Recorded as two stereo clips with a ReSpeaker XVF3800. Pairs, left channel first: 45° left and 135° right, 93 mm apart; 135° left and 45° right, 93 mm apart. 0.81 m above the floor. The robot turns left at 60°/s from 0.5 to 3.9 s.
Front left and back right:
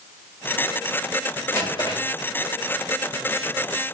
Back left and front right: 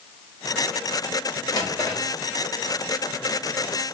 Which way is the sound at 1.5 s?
95° left.